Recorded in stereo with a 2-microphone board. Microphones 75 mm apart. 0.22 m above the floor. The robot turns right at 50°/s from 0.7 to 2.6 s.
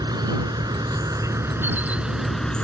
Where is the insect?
80° right; by 2.6 s 15° left.